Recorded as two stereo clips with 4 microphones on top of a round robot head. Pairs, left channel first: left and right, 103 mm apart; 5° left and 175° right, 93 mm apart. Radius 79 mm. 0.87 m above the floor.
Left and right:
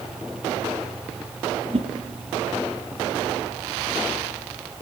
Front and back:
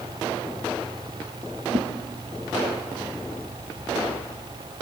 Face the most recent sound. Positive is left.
turn(degrees=-140)